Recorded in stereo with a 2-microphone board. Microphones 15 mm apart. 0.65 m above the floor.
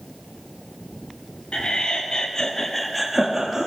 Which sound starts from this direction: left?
Laughter, at 1.5 s.